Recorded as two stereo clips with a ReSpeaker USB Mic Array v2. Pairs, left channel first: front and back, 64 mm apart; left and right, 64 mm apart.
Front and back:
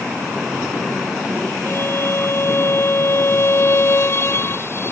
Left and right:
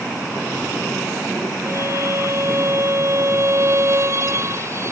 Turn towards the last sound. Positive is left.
turn(degrees=-50)